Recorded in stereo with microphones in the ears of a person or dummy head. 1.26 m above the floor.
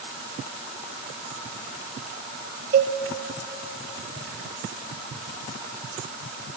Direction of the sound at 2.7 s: 45° right (ahead or behind).